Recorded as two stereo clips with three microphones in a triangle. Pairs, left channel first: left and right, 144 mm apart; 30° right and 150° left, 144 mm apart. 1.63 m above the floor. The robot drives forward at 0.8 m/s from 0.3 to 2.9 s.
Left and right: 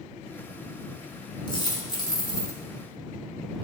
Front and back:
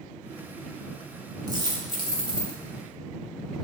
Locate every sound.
1.5 s a dropped coin: 115° left, 1.6 m; by 2.6 s 145° left, 2 m